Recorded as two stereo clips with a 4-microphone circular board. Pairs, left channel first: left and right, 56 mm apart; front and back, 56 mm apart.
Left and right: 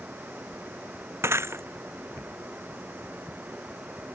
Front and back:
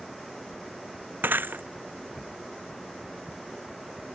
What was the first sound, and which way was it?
Breaking glass, 130° right.